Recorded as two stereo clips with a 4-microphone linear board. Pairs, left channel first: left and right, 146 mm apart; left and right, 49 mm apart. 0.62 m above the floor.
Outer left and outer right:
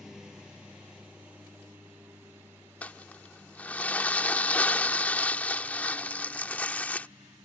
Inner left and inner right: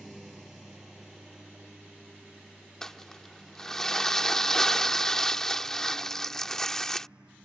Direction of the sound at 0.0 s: 5° right (ahead or behind).